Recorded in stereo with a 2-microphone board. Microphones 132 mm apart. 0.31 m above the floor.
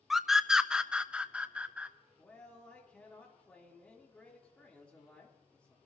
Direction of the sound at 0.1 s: Centre (ahead or behind).